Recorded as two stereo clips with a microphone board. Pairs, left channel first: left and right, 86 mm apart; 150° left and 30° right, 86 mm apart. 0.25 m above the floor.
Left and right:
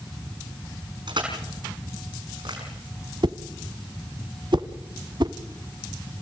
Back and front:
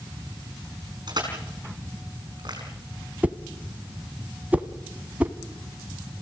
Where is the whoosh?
100° right, 0.9 m.